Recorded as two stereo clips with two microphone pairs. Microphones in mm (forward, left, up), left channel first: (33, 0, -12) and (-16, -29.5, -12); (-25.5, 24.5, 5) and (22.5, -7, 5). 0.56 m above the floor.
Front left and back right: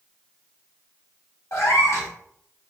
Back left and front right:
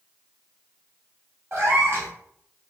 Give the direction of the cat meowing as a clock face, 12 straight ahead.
12 o'clock.